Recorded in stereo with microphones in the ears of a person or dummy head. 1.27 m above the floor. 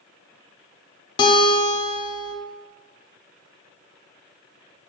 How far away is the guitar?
About 0.5 m.